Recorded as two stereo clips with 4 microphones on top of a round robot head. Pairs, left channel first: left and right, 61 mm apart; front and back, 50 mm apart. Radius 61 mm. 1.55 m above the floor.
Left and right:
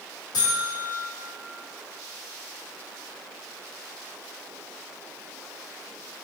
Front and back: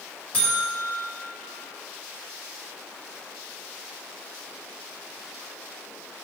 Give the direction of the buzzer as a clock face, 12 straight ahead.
10 o'clock.